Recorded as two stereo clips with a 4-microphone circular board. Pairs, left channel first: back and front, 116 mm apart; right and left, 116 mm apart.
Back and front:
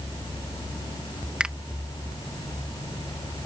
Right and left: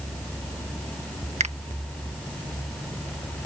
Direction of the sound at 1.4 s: 80° left.